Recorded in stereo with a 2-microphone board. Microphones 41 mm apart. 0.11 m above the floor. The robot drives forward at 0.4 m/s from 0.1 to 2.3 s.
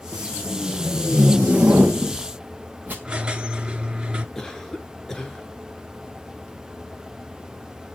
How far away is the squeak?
About 1.3 m.